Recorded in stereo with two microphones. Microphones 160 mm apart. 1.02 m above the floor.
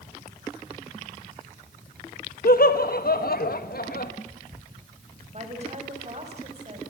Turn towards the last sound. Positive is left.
turn(degrees=-45)  # may be behind; listen again after turning